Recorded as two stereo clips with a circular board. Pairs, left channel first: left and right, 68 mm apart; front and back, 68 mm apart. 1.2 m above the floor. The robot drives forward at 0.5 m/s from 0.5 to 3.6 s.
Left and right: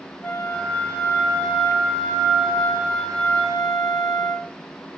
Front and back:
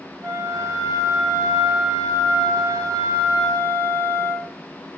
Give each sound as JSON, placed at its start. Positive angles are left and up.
{"t": 0.2, "sound": "a flute", "azimuth_deg": 160, "distance_m": 5.5}